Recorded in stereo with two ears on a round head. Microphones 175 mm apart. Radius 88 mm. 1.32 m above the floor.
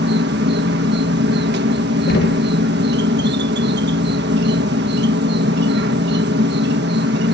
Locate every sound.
0.0 s an insect: 55° right (ahead or behind)
2.1 s knocking: 50° left (ahead or behind)